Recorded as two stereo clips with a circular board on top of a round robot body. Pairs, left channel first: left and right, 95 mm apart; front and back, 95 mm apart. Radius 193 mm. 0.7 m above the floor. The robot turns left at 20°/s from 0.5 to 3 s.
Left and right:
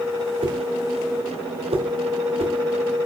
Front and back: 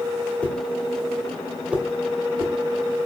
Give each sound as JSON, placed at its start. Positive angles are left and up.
{"t": 0.4, "sound": "a whoosh", "azimuth_deg": -75, "distance_m": 3.0}